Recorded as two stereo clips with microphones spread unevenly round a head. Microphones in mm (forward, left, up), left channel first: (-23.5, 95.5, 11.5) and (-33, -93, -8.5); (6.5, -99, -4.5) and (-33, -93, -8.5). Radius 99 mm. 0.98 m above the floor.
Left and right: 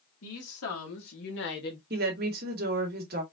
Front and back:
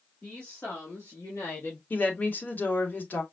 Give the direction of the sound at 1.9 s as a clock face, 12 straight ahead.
2 o'clock.